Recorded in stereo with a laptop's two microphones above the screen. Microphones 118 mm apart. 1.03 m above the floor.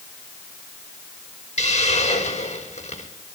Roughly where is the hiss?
Left.